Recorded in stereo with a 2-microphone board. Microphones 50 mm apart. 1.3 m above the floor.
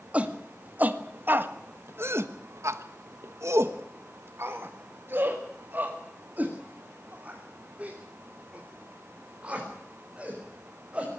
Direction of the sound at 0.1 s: 30° right (ahead or behind).